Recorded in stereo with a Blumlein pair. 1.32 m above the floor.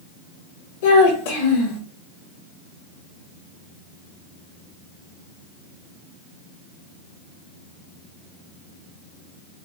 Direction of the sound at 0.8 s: 50° left.